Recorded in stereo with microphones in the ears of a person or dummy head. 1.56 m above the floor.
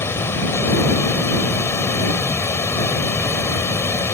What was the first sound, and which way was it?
Running water, 15° left (ahead or behind).